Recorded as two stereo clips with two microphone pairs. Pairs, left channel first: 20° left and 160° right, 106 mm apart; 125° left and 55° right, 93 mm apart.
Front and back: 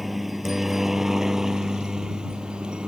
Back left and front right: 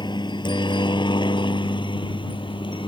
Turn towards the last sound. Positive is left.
turn(degrees=115)